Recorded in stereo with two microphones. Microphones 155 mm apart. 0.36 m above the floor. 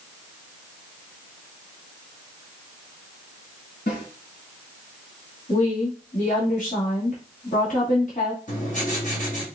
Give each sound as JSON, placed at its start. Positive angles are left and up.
{"t": 3.9, "sound": "a snare drum", "side_deg": 75, "distance_m": 3.0}
{"t": 5.5, "sound": "a woman speaking", "side_deg": 55, "distance_m": 1.9}
{"t": 8.5, "sound": "writing", "side_deg": 60, "distance_m": 2.0}